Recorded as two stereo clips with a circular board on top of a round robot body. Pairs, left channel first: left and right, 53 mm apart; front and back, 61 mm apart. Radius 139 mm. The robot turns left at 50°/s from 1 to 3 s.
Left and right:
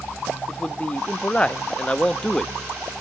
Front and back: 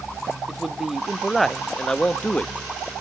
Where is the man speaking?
105° left, 0.7 m; by 3.0 s 5° left, 0.7 m.